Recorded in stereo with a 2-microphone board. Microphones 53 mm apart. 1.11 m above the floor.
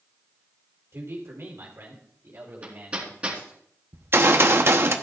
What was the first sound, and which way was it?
A man speaking, 60° right (ahead or behind).